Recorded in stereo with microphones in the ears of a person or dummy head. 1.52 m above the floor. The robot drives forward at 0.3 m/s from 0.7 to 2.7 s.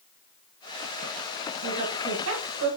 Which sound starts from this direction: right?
A woman speaking, at 1.6 s.